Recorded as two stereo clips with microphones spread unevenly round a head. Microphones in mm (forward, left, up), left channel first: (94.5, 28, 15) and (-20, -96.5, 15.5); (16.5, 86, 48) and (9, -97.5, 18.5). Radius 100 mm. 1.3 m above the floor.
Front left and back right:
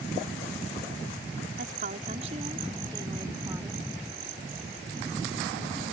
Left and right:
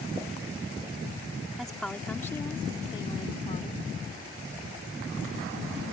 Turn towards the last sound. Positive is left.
turn(degrees=145)